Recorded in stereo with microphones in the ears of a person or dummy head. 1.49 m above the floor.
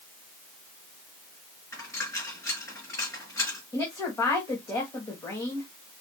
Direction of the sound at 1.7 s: 10° left (ahead or behind).